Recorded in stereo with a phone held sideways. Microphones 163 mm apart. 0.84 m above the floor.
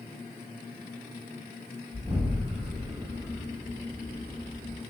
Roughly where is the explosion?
Centre.